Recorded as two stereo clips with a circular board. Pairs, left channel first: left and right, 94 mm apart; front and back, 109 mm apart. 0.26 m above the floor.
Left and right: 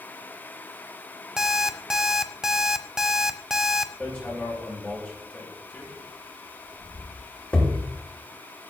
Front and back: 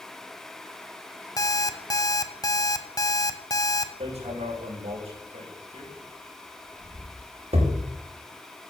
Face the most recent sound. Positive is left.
turn(degrees=170)